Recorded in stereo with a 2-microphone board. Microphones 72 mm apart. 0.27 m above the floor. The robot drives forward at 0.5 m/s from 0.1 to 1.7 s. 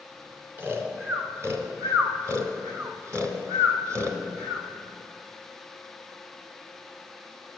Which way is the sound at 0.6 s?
30° right (ahead or behind).